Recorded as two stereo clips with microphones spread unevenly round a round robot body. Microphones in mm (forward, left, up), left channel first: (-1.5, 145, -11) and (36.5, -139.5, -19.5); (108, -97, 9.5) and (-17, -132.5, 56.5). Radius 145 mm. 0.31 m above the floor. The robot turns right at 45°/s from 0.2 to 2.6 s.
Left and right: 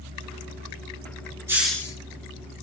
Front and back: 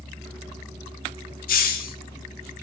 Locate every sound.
1.5 s a hiss: straight ahead, 0.5 m; by 2.0 s 20° left, 0.5 m